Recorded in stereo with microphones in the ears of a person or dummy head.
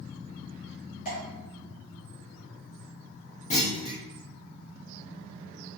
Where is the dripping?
40° left (ahead or behind), 1.4 m.